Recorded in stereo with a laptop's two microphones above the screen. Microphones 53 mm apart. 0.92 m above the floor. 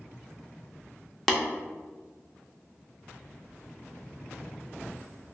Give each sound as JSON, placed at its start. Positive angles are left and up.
{"t": 1.3, "sound": "tapping", "side_deg": 5, "distance_m": 0.6}